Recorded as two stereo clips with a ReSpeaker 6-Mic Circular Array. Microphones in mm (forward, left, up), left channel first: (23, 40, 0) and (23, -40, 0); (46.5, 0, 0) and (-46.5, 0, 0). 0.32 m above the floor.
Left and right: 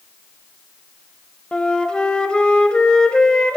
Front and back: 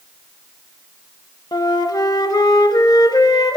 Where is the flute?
15° left, 0.6 m.